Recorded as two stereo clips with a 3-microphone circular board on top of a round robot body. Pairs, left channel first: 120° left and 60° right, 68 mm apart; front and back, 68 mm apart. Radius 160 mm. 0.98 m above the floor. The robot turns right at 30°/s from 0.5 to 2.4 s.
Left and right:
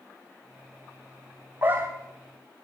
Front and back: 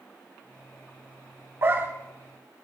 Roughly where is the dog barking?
Behind right.